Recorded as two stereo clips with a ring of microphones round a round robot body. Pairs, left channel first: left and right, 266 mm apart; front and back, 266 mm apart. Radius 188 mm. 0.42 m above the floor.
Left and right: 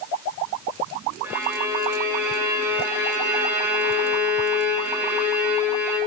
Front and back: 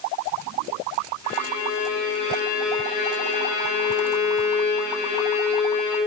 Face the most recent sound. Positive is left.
turn(degrees=-10)